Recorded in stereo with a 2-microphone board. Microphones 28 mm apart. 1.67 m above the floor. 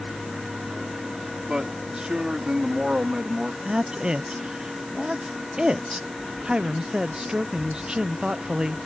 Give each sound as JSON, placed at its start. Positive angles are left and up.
{"t": 1.5, "sound": "a man speaking", "side_deg": -35}
{"t": 3.6, "sound": "a woman speaking", "side_deg": -30}